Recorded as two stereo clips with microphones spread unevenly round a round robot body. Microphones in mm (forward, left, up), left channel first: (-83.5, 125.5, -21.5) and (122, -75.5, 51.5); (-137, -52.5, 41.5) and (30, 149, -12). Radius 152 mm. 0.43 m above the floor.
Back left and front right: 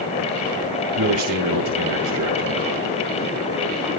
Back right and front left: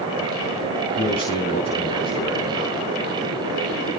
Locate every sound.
0.9 s a man speaking: 65° right, 5 m